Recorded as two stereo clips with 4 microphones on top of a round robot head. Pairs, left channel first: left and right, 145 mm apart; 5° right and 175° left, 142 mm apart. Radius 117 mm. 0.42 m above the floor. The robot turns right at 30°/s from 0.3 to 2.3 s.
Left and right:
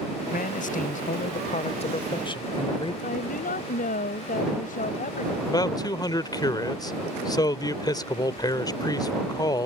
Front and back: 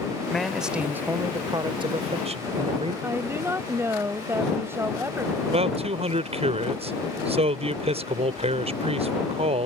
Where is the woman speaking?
105° left.